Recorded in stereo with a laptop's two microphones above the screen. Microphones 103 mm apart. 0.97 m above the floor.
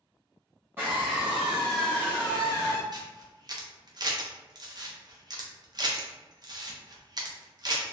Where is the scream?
20° right (ahead or behind), 1.0 m; by 2.8 s 40° left (ahead or behind), 0.9 m.